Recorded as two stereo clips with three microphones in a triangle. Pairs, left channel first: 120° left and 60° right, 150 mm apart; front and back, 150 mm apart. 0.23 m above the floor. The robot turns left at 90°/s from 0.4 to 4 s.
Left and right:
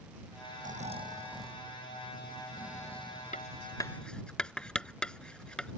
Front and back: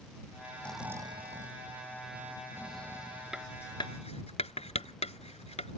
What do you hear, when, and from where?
0.6 s snoring: 75° right; by 3.5 s 25° left
3.3 s writing: 95° left; by 5.8 s 35° left